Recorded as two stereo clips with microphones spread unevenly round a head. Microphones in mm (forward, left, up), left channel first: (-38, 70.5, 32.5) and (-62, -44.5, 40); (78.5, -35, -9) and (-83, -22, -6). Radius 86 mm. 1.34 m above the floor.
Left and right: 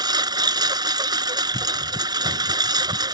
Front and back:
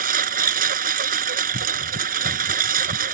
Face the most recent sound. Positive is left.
turn(degrees=-155)